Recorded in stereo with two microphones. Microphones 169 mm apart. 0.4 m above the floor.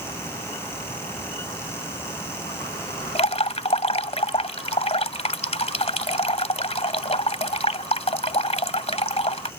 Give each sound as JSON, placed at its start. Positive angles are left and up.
{"t": 3.1, "sound": "dripping", "side_deg": 40}